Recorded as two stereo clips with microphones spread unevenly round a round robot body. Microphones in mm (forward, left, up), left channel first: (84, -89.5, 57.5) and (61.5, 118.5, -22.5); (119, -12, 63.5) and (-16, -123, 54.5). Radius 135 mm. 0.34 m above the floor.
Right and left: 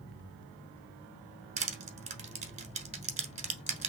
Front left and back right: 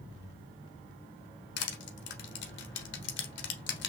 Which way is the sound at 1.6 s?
40° left.